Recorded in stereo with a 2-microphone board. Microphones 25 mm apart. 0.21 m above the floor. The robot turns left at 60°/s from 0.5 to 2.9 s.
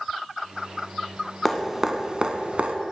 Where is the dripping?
5° left (ahead or behind), 0.7 m; by 2.8 s 55° right (ahead or behind), 0.7 m.